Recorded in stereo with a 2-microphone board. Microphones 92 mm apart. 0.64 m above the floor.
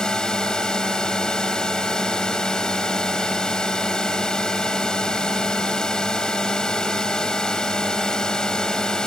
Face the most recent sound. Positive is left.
turn(degrees=5)  # may be behind; listen again after turning